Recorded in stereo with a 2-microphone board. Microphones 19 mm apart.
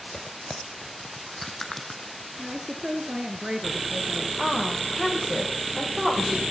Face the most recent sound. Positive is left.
turn(degrees=-10)  # may be behind; listen again after turning